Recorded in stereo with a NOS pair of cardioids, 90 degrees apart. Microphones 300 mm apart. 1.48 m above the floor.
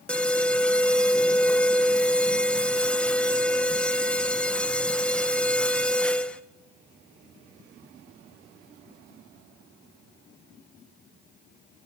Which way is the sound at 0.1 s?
5° left.